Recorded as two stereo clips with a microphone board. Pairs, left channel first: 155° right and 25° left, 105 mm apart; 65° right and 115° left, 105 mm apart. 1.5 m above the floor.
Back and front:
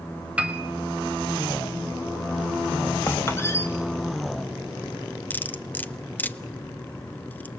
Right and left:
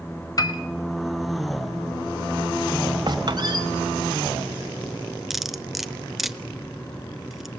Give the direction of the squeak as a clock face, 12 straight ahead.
7 o'clock.